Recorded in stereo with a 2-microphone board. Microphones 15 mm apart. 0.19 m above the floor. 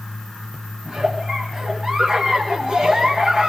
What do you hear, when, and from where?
0.8 s a giggle: 60° right (ahead or behind), 4.5 m